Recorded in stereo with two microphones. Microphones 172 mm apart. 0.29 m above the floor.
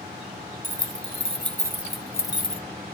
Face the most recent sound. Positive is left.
turn(degrees=35)  # may be behind; listen again after turning